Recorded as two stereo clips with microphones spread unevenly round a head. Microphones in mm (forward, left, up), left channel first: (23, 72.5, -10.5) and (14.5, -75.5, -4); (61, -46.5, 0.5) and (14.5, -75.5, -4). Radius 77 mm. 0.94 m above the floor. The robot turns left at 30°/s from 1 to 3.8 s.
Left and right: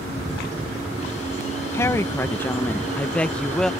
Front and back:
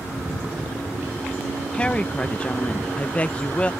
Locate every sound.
1.7 s a woman speaking: 70° left; by 3.7 s 15° left